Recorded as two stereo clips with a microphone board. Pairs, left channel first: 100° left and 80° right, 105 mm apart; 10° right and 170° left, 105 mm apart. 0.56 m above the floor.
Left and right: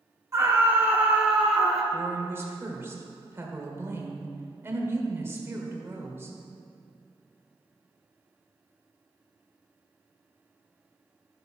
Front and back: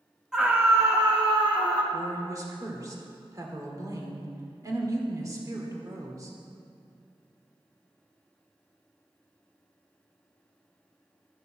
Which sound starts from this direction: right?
A scream, at 0.3 s.